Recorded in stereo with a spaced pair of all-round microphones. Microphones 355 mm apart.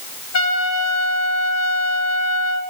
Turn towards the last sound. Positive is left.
turn(degrees=45)  # may be behind; listen again after turning